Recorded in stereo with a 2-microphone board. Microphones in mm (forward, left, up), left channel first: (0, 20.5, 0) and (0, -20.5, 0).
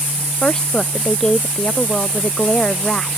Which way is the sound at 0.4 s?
20° left (ahead or behind).